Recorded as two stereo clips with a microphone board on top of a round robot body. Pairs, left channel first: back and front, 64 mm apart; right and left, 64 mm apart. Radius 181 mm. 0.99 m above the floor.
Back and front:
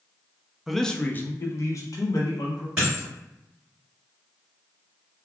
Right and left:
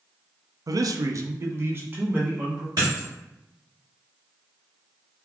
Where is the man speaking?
85° left, 0.5 m; by 2.7 s 155° left, 1.2 m.